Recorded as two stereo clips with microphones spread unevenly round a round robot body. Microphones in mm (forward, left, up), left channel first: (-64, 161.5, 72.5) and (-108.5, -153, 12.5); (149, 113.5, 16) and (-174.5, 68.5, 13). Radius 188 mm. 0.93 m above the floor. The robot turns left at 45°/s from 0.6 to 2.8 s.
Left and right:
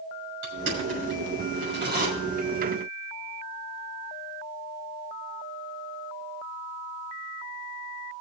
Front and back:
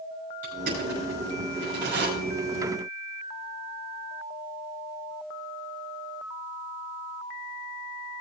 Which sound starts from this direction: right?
Crushing, at 0.4 s.